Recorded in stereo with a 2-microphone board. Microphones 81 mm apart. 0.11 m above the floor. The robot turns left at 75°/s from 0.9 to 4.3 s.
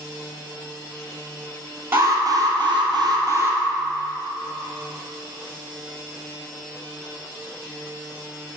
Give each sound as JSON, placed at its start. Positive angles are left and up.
{"t": 1.9, "sound": "an alarm", "azimuth_deg": -25, "distance_m": 1.9}